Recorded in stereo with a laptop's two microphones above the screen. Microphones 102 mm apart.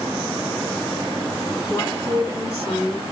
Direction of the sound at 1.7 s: 25° left (ahead or behind).